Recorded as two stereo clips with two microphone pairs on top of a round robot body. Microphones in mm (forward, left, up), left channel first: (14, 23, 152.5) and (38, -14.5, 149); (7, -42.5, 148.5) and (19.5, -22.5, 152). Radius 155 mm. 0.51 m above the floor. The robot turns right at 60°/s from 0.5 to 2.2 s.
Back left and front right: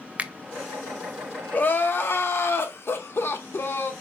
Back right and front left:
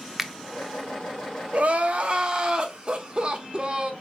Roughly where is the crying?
Left.